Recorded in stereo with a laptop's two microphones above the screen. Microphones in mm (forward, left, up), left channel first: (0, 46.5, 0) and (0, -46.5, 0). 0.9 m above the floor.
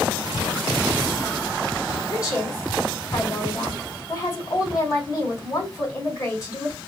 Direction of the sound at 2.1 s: 35° left (ahead or behind).